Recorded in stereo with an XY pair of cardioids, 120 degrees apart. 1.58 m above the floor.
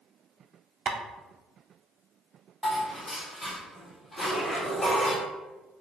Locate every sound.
0.9 s tapping: 45° right, 0.6 m
2.6 s dishes clattering: 20° left, 2.0 m
4.2 s a zipper: 30° left, 2.0 m